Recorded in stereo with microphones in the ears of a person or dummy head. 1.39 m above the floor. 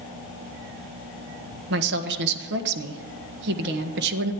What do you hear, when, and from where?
1.7 s a woman speaking: 60° right (ahead or behind), 1.5 m